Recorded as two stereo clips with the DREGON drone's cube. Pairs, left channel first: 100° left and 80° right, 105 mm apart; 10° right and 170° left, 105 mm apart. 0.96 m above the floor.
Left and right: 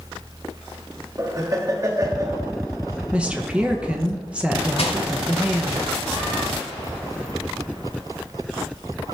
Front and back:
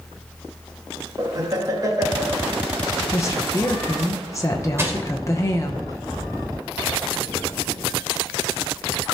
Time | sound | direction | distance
1.2 | laughter | 135° right | 1.1 m
3.1 | a woman speaking | 15° right | 0.8 m
4.8 | crushing | 105° left | 1.2 m